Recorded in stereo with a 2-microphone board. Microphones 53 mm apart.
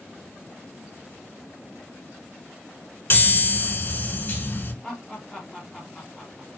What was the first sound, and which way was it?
A chime, 50° left (ahead or behind).